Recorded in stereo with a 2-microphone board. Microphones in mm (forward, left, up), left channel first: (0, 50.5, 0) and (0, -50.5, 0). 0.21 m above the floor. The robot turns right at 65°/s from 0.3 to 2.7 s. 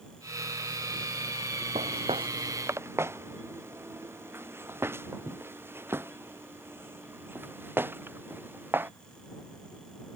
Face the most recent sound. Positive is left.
turn(degrees=-20)  # may be behind; listen again after turning